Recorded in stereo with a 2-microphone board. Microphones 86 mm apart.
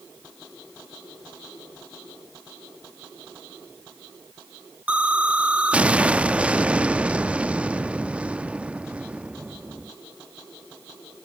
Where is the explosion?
15° right (ahead or behind), 0.5 m.